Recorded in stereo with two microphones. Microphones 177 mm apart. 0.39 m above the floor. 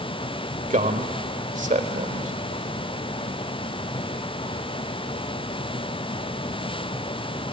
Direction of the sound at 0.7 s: 45° right (ahead or behind).